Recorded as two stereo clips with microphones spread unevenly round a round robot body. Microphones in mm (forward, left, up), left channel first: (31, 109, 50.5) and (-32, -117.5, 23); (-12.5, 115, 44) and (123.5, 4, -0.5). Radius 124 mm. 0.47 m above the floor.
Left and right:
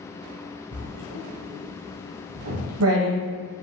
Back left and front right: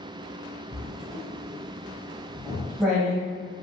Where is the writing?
125° right, 1.3 m.